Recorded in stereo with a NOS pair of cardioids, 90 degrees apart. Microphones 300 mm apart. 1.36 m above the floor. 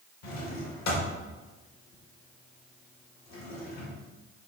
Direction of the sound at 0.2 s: 65° left.